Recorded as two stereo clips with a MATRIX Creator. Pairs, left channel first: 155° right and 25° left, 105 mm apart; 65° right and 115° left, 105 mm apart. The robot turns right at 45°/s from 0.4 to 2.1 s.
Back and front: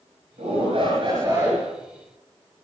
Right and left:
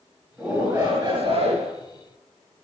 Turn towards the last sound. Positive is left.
turn(degrees=110)